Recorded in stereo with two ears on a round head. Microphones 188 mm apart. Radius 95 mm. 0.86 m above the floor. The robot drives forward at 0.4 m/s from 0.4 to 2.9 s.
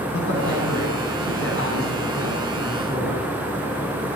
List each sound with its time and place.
0.1 s a man speaking: 60° left (ahead or behind), 8 m; by 3.3 s 65° left (ahead or behind), 7.5 m